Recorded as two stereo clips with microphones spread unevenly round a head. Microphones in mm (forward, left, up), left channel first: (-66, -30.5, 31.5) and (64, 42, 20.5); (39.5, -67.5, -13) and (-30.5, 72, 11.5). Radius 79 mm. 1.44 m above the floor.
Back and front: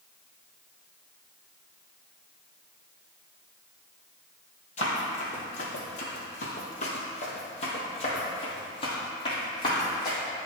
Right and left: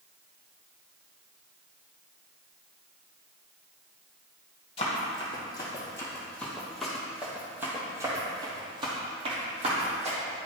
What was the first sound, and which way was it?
Running footsteps, 120° right.